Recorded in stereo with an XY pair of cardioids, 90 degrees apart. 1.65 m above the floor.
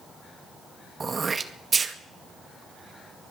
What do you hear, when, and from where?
1.0 s throat clearing: 35° right, 2 m